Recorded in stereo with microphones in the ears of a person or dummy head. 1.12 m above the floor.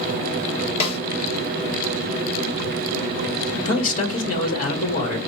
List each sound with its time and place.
0.8 s a snare drum: 40° left (ahead or behind), 1.2 m
3.6 s a man speaking: 50° left (ahead or behind), 1.2 m